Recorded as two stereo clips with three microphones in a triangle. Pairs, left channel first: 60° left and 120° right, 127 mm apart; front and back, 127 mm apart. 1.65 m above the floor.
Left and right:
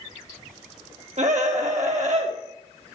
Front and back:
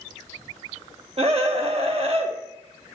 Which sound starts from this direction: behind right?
A scream, at 1.2 s.